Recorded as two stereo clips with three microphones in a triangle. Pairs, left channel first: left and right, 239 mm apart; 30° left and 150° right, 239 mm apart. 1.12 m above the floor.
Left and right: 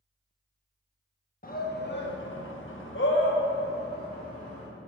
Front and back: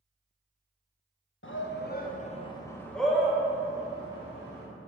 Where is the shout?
45° left, 1.1 m; by 4.7 s 145° left, 2.0 m.